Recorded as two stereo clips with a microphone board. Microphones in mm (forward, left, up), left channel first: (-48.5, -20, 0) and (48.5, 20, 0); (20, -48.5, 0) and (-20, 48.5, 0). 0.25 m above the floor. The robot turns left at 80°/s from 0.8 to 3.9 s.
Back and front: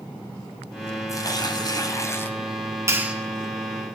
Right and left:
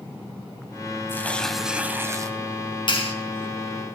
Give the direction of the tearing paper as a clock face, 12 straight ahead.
4 o'clock.